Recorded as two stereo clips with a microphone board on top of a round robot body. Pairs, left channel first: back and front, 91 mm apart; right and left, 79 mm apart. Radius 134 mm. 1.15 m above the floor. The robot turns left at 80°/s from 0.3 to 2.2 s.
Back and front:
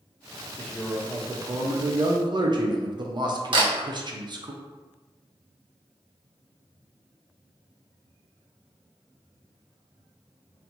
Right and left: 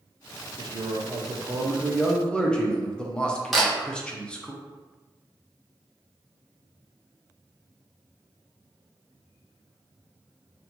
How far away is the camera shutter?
About 1.1 m.